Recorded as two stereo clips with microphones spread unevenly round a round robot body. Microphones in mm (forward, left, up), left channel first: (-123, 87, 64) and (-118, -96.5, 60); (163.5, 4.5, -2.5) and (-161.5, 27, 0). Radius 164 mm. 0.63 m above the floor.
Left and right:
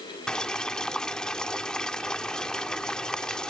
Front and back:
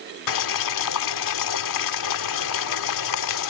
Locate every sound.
0.3 s boiling: 5° left